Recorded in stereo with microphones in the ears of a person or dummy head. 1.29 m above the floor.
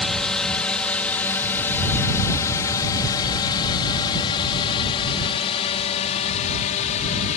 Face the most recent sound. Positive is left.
turn(degrees=40)  # may be behind; listen again after turning